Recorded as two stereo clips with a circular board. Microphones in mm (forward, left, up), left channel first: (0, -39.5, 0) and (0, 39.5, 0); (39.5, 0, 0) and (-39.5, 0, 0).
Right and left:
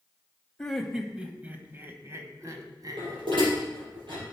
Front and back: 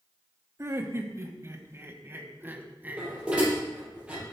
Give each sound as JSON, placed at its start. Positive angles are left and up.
{"t": 0.6, "sound": "laughter", "azimuth_deg": -170, "distance_m": 1.2}
{"t": 3.0, "sound": "dishes clattering", "azimuth_deg": 100, "distance_m": 5.5}